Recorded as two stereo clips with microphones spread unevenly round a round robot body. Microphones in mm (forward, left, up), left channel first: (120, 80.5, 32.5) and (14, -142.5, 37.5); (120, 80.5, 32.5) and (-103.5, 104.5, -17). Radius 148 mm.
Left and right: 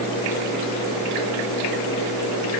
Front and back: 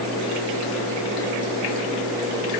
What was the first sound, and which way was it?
Only background noise.